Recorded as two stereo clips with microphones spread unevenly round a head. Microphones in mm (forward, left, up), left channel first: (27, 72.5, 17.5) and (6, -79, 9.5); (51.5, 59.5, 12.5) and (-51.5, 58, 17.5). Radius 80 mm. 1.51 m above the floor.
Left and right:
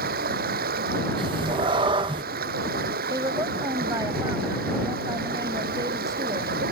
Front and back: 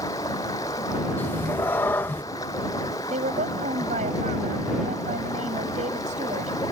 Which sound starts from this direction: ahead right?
A cat meowing, at 1.2 s.